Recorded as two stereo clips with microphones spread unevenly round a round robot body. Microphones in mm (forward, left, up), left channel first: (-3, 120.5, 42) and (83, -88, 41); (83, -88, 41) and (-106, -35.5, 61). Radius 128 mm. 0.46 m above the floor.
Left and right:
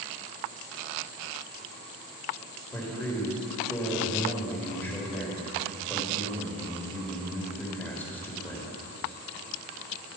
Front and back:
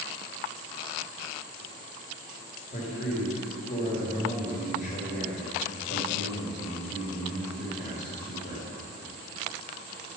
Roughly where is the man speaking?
Ahead left.